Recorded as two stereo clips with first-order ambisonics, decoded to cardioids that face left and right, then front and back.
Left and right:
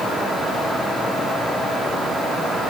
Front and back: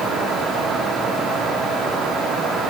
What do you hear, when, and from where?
Only background noise.